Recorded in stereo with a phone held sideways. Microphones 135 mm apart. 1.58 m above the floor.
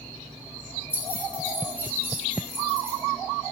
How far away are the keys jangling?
About 3 m.